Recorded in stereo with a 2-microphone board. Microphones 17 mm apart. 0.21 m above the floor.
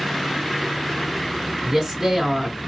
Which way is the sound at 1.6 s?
20° right (ahead or behind).